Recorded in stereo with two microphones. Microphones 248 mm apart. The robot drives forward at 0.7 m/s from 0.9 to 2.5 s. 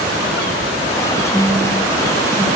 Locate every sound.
1.3 s a phone buzzing: centre (ahead or behind), 1.0 m